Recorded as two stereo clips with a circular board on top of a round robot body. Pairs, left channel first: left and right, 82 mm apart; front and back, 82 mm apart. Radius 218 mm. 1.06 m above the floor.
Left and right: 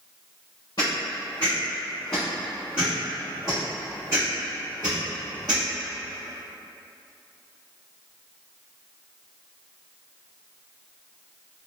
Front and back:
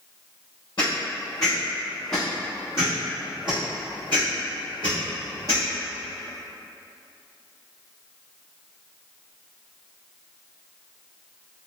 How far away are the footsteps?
About 1.3 m.